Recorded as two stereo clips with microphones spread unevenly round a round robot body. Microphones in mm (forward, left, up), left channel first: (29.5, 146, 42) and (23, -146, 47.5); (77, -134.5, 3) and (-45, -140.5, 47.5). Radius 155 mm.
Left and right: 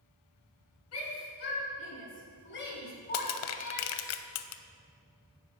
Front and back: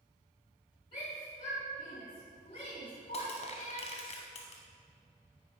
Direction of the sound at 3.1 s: 50° left.